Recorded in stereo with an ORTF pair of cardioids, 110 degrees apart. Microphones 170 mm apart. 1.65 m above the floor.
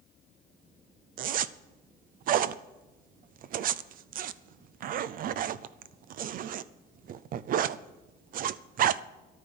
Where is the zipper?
55° right, 0.6 m.